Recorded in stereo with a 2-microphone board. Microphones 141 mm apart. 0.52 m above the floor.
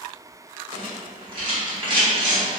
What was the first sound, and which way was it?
A rattle, 35° right (ahead or behind).